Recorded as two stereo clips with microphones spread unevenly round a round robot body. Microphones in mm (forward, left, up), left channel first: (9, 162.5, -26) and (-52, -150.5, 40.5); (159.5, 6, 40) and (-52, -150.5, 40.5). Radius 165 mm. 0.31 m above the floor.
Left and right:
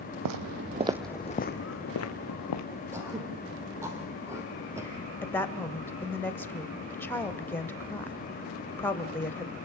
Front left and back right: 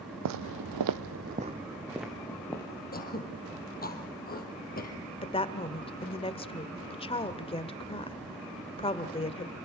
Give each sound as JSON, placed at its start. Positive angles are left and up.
{"t": 0.2, "sound": "footsteps", "azimuth_deg": -125, "distance_m": 0.9}
{"t": 2.9, "sound": "throat clearing", "azimuth_deg": -20, "distance_m": 3.5}
{"t": 5.2, "sound": "a woman speaking", "azimuth_deg": 50, "distance_m": 1.0}